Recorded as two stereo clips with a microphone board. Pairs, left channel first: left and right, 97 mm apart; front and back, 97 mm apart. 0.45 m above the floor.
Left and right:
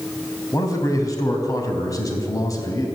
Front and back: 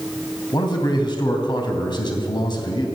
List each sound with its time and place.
0.5 s a man speaking: 40° left, 3 m